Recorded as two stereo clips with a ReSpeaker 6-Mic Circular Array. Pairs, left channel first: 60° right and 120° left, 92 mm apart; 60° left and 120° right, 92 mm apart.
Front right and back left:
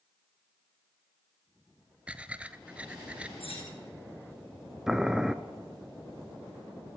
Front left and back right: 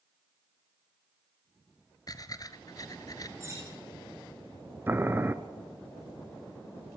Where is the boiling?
160° right, 1.0 m.